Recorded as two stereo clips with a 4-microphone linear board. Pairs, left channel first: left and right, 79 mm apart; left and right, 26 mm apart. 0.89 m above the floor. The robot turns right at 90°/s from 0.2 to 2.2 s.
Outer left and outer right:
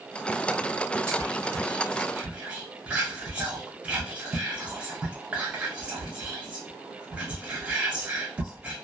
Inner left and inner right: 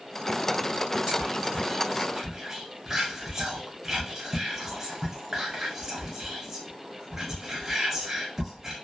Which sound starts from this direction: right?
Whispering, at 1.1 s.